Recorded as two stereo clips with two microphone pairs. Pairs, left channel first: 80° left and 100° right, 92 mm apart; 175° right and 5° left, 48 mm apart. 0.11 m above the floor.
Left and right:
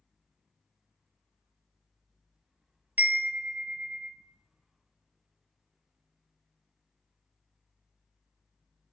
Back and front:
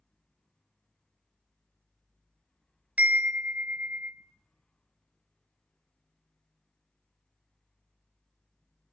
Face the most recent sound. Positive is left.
turn(degrees=-40)